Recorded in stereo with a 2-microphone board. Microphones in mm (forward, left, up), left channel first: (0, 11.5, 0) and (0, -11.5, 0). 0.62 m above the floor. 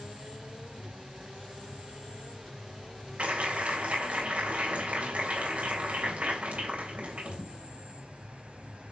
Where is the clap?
70° right (ahead or behind), 3 m.